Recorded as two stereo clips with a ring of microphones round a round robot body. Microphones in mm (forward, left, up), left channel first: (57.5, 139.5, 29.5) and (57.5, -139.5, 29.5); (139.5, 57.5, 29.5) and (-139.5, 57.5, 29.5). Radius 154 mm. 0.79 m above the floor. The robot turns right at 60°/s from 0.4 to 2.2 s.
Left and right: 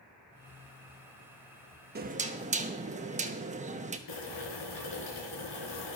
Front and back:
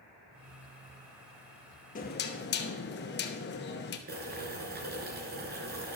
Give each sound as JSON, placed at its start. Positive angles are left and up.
{"t": 1.9, "sound": "knocking", "azimuth_deg": -50, "distance_m": 0.9}
{"t": 4.1, "sound": "boiling", "azimuth_deg": 125, "distance_m": 3.5}